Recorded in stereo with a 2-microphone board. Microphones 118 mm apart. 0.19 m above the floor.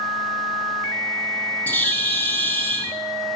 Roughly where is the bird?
Centre.